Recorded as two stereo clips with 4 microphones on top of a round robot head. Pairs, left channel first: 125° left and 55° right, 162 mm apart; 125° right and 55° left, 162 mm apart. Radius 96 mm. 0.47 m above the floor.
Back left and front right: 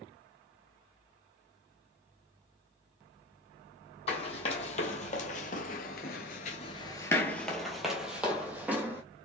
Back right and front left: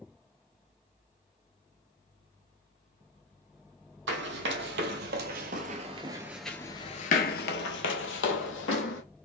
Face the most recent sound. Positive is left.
turn(degrees=-130)